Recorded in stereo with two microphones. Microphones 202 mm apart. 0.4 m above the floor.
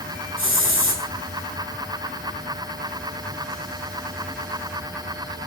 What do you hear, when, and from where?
0.4 s a hiss: 75° left (ahead or behind), 4.5 m